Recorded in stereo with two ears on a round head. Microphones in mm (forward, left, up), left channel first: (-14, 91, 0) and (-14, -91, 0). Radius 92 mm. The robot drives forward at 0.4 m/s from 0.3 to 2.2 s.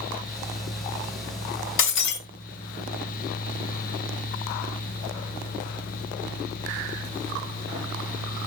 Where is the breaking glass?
60° left (ahead or behind), 1.9 m; by 2.2 s 55° left (ahead or behind), 1.9 m.